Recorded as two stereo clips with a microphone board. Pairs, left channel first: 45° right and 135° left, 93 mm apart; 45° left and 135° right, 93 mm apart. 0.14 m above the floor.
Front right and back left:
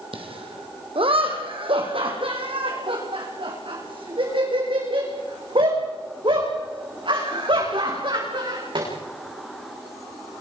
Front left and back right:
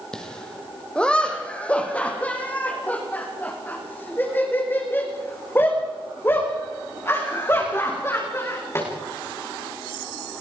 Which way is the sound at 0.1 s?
125° left.